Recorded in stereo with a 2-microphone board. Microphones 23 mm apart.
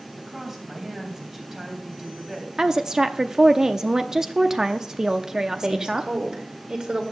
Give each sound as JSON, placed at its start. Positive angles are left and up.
{"t": 0.2, "sound": "a woman speaking", "side_deg": -15, "distance_m": 3.5}
{"t": 2.6, "sound": "a woman speaking", "side_deg": -20, "distance_m": 0.7}
{"t": 5.5, "sound": "a woman speaking", "side_deg": -35, "distance_m": 2.5}